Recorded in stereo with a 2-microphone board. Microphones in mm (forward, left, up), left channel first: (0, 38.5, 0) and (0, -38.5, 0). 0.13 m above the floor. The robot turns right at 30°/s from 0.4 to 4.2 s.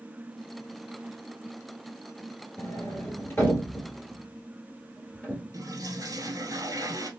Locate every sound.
2.6 s a sliding door: 45° left (ahead or behind), 1.2 m; by 5.4 s 10° left (ahead or behind), 1.2 m
5.5 s a toilet flushing: 50° right (ahead or behind), 1.0 m